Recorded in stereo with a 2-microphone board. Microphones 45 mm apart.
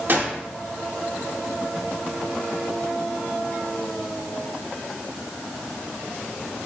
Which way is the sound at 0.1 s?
45° right (ahead or behind).